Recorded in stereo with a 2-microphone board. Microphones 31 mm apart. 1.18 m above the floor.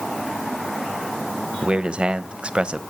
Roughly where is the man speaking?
Right.